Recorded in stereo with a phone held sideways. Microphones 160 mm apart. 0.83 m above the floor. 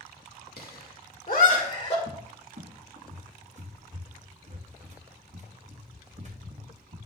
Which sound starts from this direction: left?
Laughter, at 0.6 s.